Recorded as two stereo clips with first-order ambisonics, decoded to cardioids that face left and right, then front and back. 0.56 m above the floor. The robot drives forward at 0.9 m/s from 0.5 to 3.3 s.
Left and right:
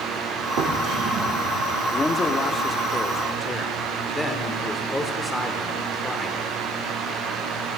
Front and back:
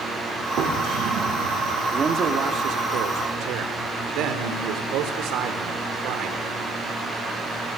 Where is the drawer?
120° right, 7 m; by 1.7 s 130° right, 8 m.